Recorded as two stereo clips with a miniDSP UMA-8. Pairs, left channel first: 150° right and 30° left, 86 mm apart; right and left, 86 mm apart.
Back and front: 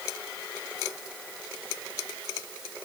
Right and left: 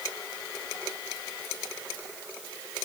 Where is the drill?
I don't hear a drill.